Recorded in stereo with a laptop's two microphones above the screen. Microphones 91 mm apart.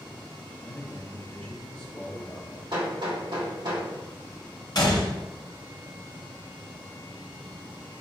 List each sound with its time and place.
0.6 s a man speaking: 25° left (ahead or behind), 0.8 m
2.7 s hammering: 60° right (ahead or behind), 1.8 m
4.8 s a gunshot: 50° left (ahead or behind), 0.7 m